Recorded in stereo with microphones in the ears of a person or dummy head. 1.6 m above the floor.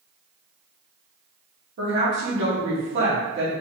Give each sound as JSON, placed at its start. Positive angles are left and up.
{"t": 1.8, "sound": "a woman speaking", "side_deg": -60, "distance_m": 2.0}